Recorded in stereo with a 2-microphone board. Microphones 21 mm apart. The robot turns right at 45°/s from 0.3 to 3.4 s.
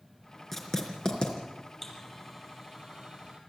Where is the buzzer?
15° left (ahead or behind), 5.5 m; by 3.4 s 55° right (ahead or behind), 5.5 m.